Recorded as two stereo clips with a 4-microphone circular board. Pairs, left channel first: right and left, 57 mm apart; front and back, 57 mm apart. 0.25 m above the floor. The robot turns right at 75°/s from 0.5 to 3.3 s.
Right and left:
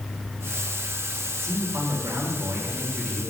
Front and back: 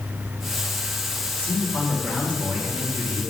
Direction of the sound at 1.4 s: 55° left.